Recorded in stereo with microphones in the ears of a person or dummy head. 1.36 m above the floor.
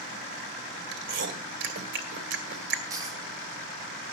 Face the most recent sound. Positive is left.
turn(degrees=-20)  # may be behind; listen again after turning